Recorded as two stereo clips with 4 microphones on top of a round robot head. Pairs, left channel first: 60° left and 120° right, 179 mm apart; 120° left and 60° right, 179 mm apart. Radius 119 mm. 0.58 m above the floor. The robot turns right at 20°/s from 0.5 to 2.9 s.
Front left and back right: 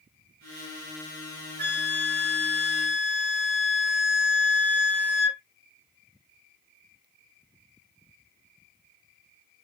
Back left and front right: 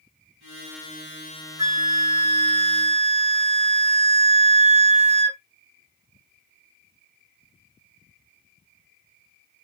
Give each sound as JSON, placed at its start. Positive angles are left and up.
{"t": 1.6, "sound": "a flute", "azimuth_deg": -130, "distance_m": 0.9}